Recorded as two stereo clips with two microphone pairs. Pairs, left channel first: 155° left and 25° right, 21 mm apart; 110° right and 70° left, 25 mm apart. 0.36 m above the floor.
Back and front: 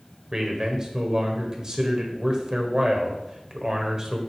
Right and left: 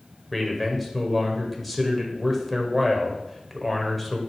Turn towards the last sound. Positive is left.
turn(degrees=-30)